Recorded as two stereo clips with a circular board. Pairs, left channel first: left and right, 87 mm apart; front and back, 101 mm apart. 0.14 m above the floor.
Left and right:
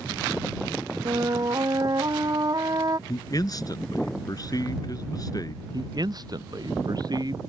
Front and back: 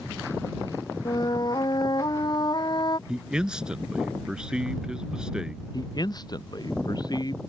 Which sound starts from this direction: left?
A man speaking, at 3.1 s.